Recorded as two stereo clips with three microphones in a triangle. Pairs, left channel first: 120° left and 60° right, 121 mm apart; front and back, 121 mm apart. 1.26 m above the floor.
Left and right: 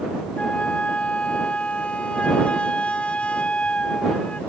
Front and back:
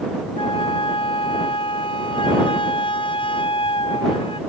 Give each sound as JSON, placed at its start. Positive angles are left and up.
{"t": 0.4, "sound": "a flute", "azimuth_deg": 40}